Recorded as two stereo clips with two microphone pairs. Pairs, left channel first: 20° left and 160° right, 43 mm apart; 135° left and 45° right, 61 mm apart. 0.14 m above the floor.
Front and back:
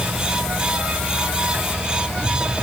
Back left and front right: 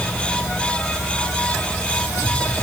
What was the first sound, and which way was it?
Only background noise.